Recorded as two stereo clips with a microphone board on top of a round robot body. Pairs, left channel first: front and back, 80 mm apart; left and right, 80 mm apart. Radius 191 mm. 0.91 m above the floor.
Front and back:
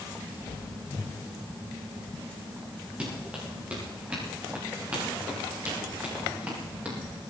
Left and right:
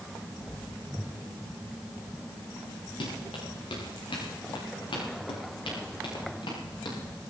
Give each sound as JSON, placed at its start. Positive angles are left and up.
{"t": 3.0, "sound": "running footsteps", "azimuth_deg": 105, "distance_m": 8.0}